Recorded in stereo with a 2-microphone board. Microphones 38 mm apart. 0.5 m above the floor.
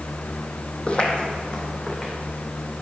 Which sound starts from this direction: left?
Footsteps, at 0.9 s.